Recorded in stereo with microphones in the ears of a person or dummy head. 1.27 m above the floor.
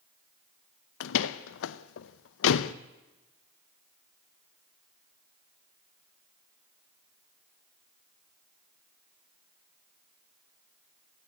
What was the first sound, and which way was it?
A door slam, 70° left (ahead or behind).